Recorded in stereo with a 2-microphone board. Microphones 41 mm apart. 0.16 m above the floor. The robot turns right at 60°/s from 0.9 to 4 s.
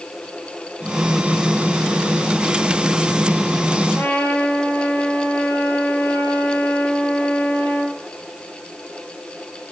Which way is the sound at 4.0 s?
75° left (ahead or behind).